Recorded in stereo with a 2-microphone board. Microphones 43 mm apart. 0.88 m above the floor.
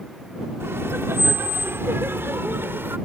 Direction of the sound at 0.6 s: 70° right (ahead or behind).